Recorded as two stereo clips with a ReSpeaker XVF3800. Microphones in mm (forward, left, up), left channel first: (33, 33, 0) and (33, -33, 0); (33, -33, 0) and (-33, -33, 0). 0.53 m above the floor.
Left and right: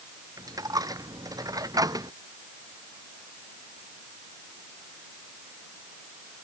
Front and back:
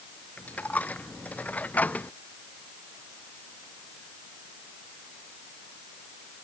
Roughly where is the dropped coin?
Ahead right.